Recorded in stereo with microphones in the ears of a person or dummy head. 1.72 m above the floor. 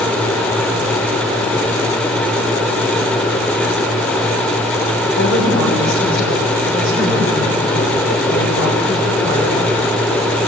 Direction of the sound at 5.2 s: 55° left (ahead or behind).